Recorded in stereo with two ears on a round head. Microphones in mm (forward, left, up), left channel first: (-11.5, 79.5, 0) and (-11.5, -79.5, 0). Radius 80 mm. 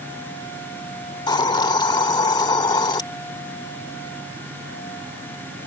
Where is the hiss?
25° left (ahead or behind).